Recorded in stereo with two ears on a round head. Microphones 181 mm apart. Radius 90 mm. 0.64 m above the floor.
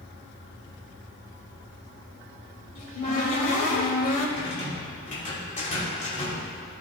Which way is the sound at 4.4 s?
40° left (ahead or behind).